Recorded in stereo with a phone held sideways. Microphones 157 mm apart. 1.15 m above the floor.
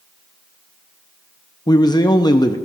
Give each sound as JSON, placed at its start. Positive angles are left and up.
{"t": 1.7, "sound": "a man speaking", "side_deg": 25, "distance_m": 0.8}